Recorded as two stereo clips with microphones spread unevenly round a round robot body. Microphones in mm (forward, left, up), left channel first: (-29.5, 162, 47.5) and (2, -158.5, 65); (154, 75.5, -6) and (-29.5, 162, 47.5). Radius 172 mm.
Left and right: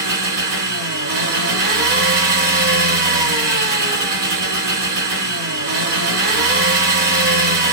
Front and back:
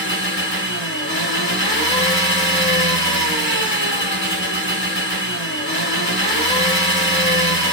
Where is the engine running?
45° right, 1.4 m.